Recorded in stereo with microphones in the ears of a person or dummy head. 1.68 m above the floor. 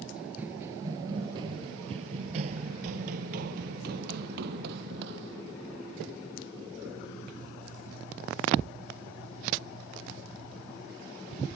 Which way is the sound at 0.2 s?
10° right (ahead or behind).